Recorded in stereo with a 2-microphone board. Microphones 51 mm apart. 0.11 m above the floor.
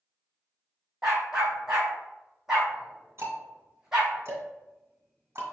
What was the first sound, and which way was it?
A dog barking, 10° right (ahead or behind).